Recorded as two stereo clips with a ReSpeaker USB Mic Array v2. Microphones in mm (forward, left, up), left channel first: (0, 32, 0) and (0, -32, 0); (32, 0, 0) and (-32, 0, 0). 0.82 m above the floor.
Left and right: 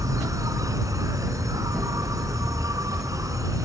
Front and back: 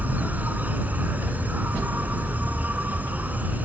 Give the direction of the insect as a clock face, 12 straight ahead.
4 o'clock.